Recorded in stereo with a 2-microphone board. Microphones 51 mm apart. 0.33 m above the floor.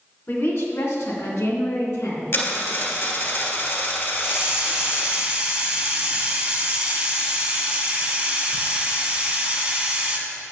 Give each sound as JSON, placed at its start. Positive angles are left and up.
{"t": 0.3, "sound": "a woman speaking", "side_deg": 55, "distance_m": 2.0}
{"t": 2.3, "sound": "a dropped coin", "side_deg": 55, "distance_m": 2.0}
{"t": 4.2, "sound": "a hiss", "side_deg": -20, "distance_m": 1.5}